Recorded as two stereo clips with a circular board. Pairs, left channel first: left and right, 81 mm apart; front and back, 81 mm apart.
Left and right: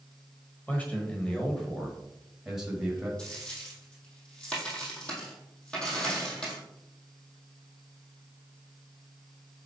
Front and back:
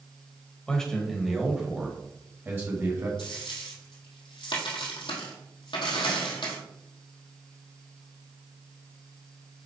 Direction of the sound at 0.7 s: 60° left.